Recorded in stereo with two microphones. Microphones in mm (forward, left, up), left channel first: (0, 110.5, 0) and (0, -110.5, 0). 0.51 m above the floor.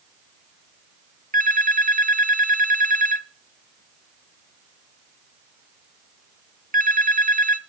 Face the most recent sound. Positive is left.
turn(degrees=-40)  # may be behind; listen again after turning